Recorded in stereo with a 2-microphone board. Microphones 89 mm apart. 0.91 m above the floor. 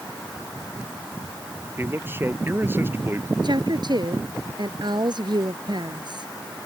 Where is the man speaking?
25° right (ahead or behind).